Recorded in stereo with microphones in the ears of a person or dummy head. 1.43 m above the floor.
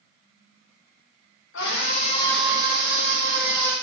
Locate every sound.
1.5 s a scream: 70° left (ahead or behind), 1.0 m; by 3.7 s 55° right (ahead or behind), 1.6 m